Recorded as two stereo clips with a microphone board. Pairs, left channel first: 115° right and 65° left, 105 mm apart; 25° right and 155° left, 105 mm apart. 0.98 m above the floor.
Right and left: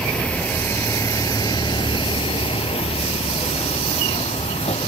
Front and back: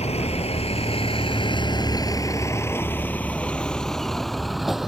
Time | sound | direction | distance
0.0 | a vehicle | 30° right | ?